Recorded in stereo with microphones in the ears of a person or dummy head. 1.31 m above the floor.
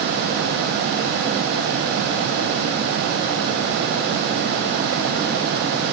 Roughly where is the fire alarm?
No fire alarm in this recording.